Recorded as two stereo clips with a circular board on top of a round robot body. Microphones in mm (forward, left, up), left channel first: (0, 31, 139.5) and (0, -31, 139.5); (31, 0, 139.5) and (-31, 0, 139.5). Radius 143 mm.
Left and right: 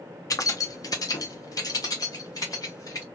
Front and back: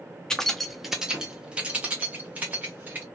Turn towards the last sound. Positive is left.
turn(degrees=120)